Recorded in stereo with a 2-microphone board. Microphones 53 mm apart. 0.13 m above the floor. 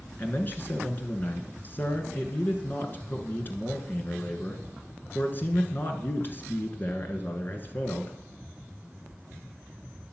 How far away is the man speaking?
About 1.5 m.